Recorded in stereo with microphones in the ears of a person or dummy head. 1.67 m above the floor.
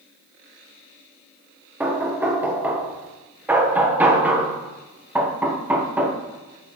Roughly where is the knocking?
Centre.